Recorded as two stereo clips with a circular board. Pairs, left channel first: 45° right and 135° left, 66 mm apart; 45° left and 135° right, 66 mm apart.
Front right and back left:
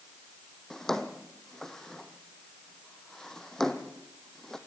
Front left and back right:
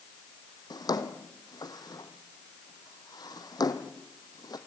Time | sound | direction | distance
0.7 | a drawer | 35° left | 1.7 m